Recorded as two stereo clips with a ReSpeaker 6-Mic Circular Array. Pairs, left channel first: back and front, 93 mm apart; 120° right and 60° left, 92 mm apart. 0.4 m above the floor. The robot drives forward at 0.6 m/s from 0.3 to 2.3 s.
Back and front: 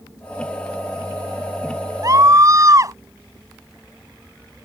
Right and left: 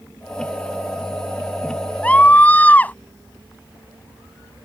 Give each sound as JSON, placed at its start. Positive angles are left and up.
{"t": 2.0, "sound": "a scream", "azimuth_deg": -45}